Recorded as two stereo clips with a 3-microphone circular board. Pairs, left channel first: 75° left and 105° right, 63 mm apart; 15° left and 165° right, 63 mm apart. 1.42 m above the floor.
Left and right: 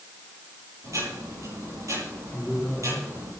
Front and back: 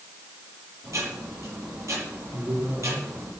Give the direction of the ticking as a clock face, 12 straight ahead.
4 o'clock.